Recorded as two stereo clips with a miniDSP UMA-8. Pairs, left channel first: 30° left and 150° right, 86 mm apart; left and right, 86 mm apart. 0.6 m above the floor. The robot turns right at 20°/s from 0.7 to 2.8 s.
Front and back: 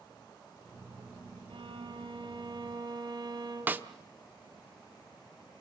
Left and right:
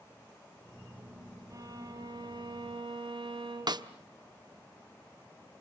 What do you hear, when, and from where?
1.5 s a violin: 140° right, 3.5 m; by 3.9 s 110° right, 3.5 m
3.7 s a snare drum: 85° right, 0.9 m